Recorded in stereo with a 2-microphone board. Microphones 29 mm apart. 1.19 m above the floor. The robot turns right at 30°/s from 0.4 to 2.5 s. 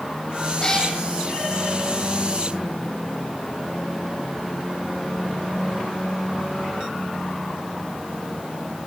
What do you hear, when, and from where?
0.6 s a cat meowing: 25° left (ahead or behind), 4 m; by 0.9 s 15° left (ahead or behind), 4 m